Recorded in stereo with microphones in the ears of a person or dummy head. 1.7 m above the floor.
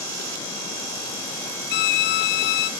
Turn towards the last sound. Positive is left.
turn(degrees=50)  # may be behind; listen again after turning